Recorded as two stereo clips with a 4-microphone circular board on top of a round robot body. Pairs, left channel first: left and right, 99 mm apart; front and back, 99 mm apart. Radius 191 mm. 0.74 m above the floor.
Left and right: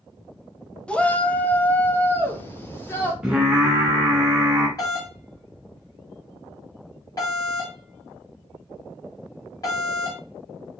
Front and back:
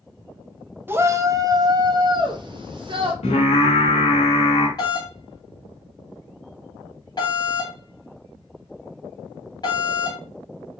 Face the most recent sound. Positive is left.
turn(degrees=40)